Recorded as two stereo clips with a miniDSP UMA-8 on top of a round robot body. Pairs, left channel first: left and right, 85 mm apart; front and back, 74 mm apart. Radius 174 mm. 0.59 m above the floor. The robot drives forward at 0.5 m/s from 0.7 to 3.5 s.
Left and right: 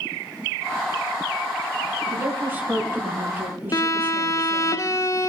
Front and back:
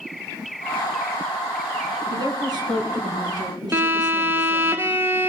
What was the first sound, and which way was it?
A woman speaking, 155° right.